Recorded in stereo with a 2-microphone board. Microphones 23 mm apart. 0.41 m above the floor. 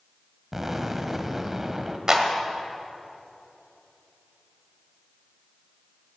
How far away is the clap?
About 1.6 m.